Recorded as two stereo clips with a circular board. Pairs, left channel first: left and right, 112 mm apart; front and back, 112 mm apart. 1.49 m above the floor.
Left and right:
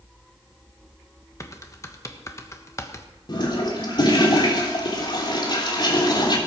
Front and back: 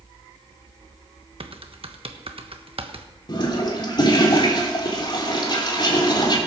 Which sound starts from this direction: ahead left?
A toilet flushing, at 3.3 s.